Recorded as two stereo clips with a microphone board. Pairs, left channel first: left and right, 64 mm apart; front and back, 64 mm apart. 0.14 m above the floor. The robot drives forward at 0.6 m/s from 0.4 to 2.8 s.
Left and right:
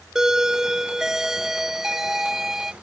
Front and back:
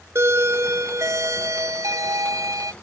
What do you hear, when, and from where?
0.1 s a doorbell: 170° right; by 2.7 s 175° right